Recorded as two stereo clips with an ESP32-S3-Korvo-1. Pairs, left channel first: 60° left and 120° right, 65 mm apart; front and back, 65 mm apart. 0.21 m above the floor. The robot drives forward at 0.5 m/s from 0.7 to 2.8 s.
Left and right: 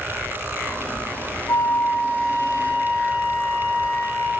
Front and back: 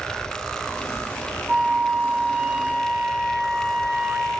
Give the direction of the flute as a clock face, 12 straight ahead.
9 o'clock.